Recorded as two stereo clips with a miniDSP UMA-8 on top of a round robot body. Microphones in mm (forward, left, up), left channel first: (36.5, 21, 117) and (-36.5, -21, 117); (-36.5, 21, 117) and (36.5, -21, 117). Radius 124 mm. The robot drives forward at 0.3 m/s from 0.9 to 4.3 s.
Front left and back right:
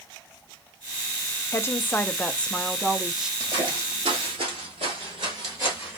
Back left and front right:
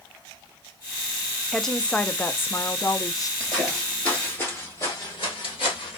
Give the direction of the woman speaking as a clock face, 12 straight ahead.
10 o'clock.